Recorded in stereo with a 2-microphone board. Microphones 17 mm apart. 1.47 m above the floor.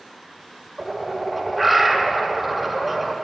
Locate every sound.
0.8 s a bird: centre (ahead or behind), 1.6 m